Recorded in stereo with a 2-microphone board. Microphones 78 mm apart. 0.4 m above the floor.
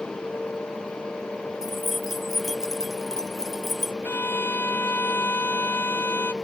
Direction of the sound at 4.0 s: 30° left (ahead or behind).